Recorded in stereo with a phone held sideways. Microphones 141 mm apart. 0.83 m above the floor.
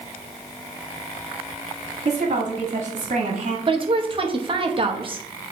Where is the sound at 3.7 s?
40° right (ahead or behind), 0.8 m.